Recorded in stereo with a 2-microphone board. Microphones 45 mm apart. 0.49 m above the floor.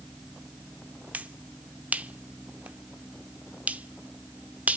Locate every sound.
1.1 s a finger snap: 35° right (ahead or behind), 0.7 m